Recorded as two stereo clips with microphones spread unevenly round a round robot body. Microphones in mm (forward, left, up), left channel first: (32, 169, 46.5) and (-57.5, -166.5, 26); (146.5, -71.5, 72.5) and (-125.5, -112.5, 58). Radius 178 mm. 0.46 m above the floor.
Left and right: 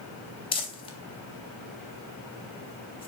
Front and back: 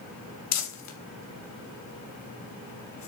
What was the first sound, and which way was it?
Crumpling, straight ahead.